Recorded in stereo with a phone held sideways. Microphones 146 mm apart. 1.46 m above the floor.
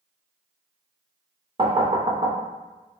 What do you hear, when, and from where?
1.6 s knocking: 35° right (ahead or behind), 0.5 m